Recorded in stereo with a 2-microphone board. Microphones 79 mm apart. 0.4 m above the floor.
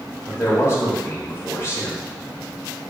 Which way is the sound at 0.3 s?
35° left (ahead or behind).